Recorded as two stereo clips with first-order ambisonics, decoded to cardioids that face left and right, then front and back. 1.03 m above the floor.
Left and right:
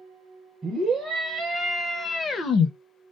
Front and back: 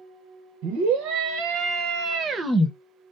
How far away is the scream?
About 1.3 m.